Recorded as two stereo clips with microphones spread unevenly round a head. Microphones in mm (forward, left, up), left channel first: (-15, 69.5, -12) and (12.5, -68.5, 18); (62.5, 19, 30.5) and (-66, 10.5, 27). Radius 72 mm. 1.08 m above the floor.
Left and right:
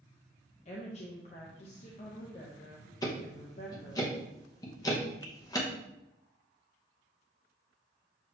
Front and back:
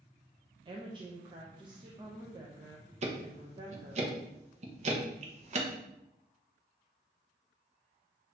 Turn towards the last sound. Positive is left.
turn(degrees=160)